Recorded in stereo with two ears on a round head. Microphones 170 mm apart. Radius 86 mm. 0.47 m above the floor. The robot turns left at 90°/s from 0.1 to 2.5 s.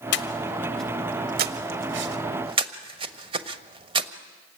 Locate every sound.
0.1 s breathing: 60° left (ahead or behind), 1.2 m; by 4.1 s 30° right (ahead or behind), 1.2 m